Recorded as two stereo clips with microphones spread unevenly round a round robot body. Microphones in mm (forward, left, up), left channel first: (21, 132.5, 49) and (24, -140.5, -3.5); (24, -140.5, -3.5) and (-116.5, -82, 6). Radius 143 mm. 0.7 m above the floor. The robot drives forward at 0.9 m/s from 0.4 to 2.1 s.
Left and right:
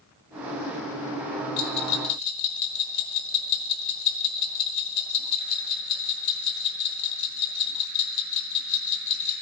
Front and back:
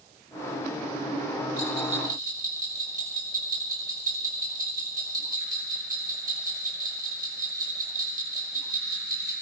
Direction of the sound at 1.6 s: 75° left.